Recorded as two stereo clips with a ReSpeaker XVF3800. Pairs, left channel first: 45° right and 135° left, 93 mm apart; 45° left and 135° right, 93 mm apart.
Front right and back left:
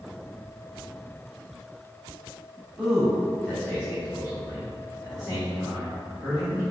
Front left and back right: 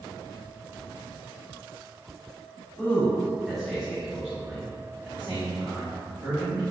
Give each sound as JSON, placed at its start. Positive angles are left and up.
{"t": 2.8, "sound": "a man speaking", "azimuth_deg": 60, "distance_m": 1.4}